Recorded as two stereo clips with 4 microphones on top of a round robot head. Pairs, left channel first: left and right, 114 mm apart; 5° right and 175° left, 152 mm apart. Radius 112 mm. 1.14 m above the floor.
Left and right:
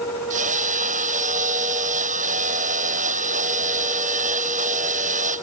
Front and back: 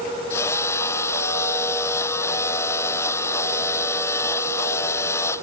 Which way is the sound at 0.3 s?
80° right.